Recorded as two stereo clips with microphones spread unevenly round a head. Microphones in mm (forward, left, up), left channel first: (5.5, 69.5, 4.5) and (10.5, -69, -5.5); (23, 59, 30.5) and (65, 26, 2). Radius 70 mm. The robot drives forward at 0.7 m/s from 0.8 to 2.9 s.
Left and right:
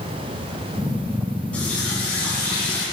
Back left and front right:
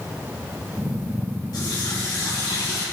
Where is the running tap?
175° left, 5.5 m.